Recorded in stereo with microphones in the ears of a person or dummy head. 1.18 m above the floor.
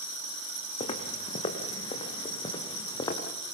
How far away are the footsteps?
About 4.5 m.